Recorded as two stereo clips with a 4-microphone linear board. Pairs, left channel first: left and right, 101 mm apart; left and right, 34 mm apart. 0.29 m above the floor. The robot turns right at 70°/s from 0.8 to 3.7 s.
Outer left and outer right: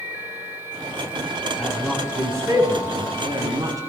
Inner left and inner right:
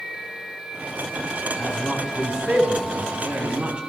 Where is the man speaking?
15° left (ahead or behind), 2.5 m; by 3.8 s 35° right (ahead or behind), 2.5 m.